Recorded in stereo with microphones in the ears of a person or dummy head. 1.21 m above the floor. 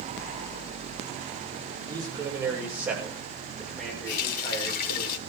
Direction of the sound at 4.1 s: 45° left (ahead or behind).